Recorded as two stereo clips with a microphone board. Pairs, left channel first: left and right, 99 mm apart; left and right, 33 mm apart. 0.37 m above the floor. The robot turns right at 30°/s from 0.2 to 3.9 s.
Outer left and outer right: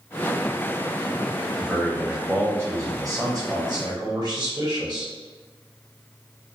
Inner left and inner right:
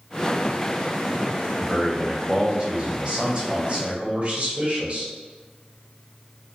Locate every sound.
1.6 s a man speaking: 175° right, 1.2 m; by 5.1 s 105° right, 1.2 m